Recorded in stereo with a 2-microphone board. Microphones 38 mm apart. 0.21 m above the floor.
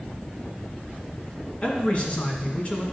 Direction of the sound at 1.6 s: 30° left (ahead or behind).